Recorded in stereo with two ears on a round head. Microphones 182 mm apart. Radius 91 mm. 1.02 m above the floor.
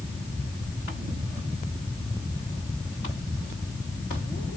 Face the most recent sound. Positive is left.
No sound to turn to.